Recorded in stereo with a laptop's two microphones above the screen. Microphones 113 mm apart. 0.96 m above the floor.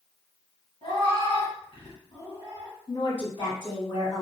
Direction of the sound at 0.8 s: 50° left (ahead or behind).